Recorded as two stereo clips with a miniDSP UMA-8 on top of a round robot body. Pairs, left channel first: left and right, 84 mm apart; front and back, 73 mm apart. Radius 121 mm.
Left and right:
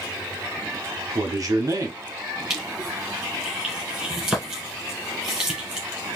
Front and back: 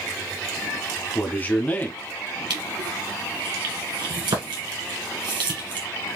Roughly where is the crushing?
Behind.